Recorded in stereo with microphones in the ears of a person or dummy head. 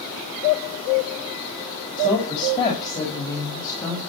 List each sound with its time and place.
2.0 s a woman speaking: 25° left (ahead or behind), 5 m; by 4.0 s 20° left (ahead or behind), 5.5 m